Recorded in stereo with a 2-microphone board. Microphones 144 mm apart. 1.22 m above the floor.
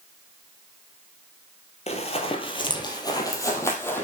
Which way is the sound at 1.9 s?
45° left (ahead or behind).